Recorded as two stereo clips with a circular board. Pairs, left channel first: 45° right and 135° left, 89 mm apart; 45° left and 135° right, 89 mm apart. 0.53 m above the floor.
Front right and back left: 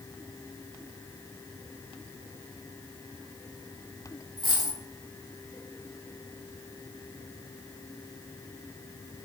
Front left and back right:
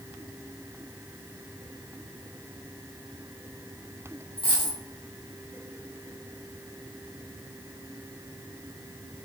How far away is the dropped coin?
About 1.4 m.